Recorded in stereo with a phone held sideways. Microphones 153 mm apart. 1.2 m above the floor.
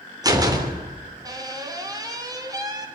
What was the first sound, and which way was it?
A door slam, 25° right (ahead or behind).